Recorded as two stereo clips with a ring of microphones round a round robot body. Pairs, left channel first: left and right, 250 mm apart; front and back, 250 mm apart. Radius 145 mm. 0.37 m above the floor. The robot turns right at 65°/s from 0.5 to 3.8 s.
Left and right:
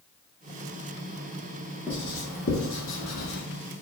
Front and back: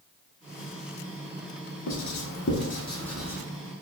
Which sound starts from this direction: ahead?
Writing, at 1.9 s.